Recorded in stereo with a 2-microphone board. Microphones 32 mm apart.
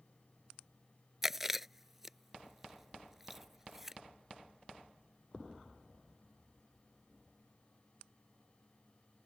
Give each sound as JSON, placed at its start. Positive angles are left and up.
{"t": 1.2, "sound": "chewing", "side_deg": -10}